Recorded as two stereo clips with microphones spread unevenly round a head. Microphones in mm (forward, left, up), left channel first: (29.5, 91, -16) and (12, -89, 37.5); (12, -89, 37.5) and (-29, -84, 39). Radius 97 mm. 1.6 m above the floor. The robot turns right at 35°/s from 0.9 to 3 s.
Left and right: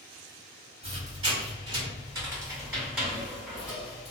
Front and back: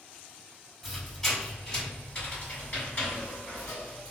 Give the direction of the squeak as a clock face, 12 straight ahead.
3 o'clock.